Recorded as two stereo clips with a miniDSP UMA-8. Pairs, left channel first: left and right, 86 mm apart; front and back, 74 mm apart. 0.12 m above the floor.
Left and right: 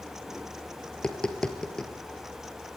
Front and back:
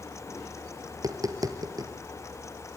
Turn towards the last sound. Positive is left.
turn(degrees=170)